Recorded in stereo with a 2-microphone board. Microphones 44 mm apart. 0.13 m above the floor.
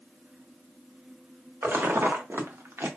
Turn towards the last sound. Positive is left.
turn(degrees=-85)